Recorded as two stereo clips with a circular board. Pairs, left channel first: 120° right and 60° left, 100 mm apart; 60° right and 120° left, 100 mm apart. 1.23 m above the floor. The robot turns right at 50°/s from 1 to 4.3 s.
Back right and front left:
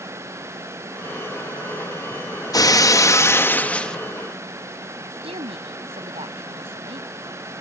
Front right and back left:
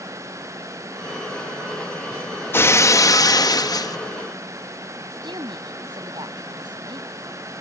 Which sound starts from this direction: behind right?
Breaking glass, at 2.5 s.